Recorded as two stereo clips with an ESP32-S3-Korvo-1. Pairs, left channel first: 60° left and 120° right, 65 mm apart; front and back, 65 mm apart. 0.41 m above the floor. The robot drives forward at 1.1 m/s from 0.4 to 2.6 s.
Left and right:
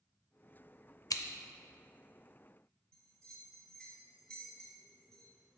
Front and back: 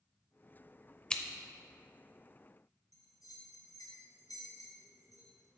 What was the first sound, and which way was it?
Scissors, 70° left.